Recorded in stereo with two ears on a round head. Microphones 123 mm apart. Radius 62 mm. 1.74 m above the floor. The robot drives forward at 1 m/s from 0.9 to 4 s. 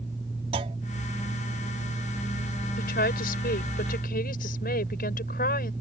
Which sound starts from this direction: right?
A clunk, at 0.5 s.